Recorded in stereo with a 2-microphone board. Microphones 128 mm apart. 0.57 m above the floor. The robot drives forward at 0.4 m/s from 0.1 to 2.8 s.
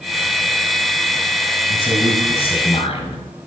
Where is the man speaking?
45° left (ahead or behind), 3 m; by 3.2 s 50° left (ahead or behind), 3 m.